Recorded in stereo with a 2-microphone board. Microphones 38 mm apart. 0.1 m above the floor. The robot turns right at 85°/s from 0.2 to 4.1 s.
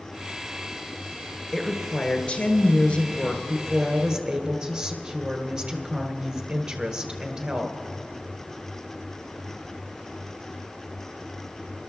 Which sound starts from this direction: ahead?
A woman speaking, at 1.5 s.